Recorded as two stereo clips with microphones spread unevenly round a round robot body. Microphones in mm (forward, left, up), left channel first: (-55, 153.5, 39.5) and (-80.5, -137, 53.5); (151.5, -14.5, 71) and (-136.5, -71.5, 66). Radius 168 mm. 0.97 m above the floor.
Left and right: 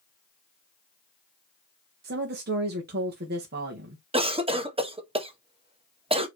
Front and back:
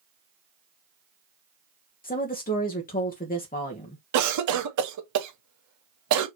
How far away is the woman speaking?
About 1.1 m.